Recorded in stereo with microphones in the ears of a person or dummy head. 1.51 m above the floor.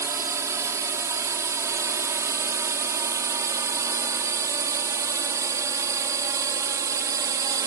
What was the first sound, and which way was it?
A drone, 15° right (ahead or behind).